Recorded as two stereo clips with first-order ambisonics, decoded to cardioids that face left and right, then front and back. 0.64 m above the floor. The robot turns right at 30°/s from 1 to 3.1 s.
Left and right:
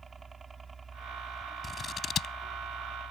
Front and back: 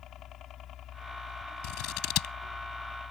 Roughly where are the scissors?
Ahead.